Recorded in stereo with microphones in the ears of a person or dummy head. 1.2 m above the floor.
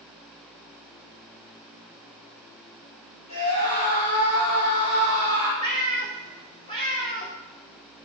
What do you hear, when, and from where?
3.3 s a scream: 40° left (ahead or behind), 4 m; by 5.5 s 70° left (ahead or behind), 3.5 m
5.6 s a cat meowing: 25° left (ahead or behind), 1.8 m